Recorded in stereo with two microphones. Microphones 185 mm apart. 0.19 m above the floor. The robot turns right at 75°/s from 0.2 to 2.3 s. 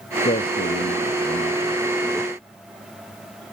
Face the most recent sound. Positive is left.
turn(degrees=-165)